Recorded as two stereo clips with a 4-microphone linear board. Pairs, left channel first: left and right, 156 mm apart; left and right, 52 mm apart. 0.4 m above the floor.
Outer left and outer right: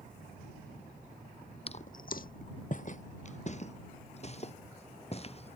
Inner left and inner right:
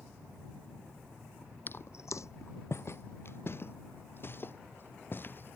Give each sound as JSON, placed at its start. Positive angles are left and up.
{"t": 1.7, "sound": "footsteps", "side_deg": 40}